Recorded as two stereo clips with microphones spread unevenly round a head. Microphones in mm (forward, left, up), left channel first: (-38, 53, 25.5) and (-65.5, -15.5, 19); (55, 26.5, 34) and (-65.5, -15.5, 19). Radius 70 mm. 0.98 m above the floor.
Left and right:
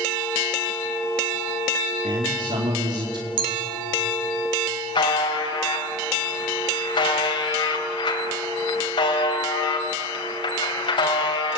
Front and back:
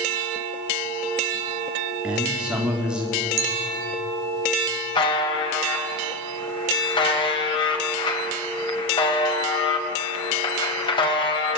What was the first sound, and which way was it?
A man speaking, 80° right.